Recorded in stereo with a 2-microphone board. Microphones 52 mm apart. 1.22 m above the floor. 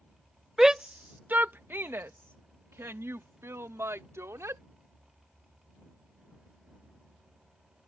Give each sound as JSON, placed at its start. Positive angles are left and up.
{"t": 0.6, "sound": "a shout", "side_deg": -5}